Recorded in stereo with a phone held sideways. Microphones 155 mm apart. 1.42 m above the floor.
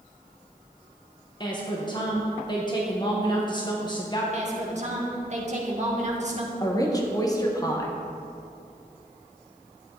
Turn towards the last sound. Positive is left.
turn(degrees=25)  # may be behind; listen again after turning